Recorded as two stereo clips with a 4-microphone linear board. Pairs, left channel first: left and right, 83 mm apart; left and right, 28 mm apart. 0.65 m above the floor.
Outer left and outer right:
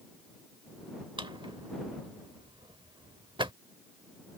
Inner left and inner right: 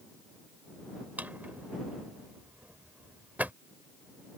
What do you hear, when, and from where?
1.2 s a drawer: 80° right